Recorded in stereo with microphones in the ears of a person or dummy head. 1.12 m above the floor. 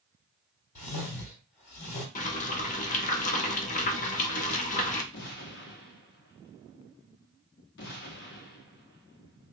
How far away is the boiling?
About 0.8 m.